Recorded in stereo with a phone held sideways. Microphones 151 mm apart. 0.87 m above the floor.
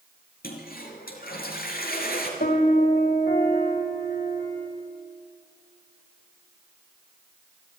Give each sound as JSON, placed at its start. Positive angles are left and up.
{"t": 0.4, "sound": "a toilet flushing", "side_deg": 80, "distance_m": 4.0}
{"t": 2.4, "sound": "a piano", "side_deg": 85, "distance_m": 3.5}